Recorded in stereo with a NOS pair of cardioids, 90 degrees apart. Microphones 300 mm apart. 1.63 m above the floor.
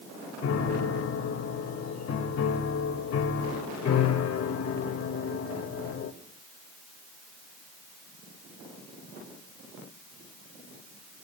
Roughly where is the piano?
Ahead left.